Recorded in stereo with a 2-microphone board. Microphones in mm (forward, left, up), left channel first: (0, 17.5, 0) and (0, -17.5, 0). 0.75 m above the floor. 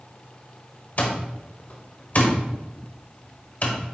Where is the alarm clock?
45° left (ahead or behind), 1.0 m.